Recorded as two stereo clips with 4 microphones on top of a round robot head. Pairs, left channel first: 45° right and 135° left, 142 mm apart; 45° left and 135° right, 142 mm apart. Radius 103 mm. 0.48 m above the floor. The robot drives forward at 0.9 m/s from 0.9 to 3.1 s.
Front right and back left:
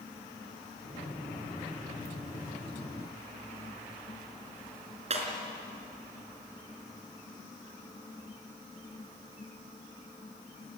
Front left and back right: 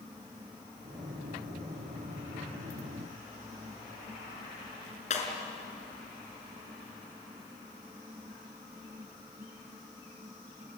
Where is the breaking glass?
85° left, 4 m.